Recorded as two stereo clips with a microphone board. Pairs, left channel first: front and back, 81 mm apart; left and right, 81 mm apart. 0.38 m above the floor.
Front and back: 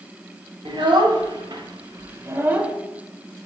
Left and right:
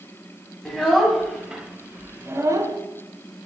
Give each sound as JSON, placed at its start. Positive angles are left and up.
{"t": 0.7, "sound": "a child speaking", "azimuth_deg": 175, "distance_m": 1.5}